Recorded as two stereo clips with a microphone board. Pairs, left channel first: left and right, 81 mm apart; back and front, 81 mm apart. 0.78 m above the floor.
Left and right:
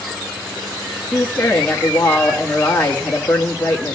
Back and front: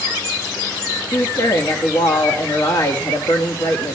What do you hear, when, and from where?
1.1 s a woman speaking: 160° left, 1.2 m